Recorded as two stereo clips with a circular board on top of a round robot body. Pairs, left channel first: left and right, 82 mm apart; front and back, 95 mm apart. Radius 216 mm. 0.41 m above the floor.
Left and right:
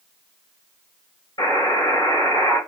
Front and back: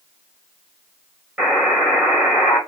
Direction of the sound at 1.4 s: 100° left.